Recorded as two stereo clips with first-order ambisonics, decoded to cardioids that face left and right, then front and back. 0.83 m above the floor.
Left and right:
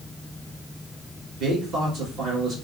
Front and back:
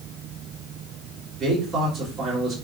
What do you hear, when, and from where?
1.4 s a man speaking: 120° right, 1.4 m